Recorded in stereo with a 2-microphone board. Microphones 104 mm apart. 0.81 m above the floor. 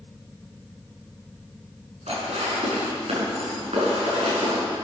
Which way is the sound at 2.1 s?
85° right.